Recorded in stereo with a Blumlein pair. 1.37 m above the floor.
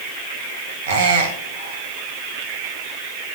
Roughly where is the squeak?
Ahead right.